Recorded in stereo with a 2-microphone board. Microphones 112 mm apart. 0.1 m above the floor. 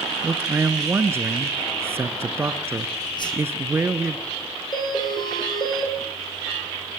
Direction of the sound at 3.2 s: 40° left (ahead or behind).